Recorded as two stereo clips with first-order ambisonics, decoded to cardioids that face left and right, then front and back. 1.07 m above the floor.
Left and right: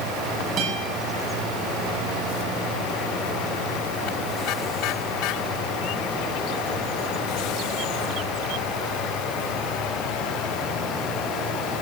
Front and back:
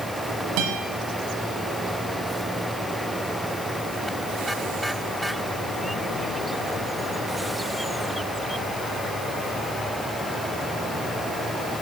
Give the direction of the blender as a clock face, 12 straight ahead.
No blender in this recording.